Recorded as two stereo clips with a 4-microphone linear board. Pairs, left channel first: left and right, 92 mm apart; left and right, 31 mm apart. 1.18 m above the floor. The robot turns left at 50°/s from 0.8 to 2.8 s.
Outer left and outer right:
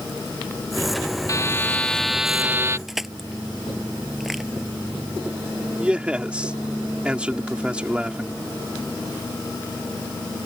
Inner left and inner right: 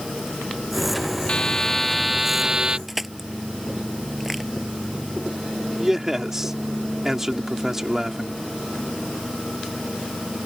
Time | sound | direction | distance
1.3 | a buzzer | 40° left | ?
2.9 | crushing | 5° right (ahead or behind) | ?
5.8 | a man speaking | 15° right (ahead or behind) | ?